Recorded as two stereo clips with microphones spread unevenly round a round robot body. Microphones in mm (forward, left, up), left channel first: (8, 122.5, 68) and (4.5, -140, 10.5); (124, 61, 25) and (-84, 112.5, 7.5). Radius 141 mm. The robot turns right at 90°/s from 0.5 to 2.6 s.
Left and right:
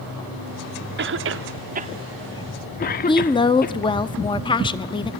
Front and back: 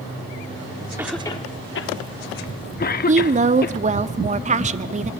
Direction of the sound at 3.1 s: 170° left.